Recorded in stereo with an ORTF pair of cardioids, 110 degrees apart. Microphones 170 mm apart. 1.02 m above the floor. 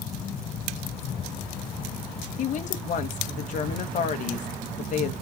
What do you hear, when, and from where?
2.4 s a woman speaking: 50° left, 0.9 m